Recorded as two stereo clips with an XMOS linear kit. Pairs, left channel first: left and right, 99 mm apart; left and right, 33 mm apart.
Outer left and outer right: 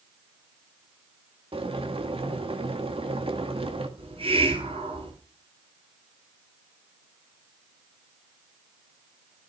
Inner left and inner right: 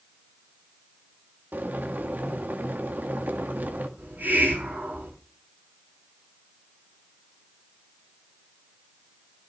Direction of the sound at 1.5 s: 70° right (ahead or behind).